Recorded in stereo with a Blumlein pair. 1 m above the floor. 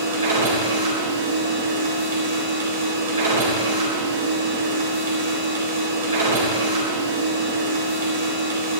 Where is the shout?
No shout in this recording.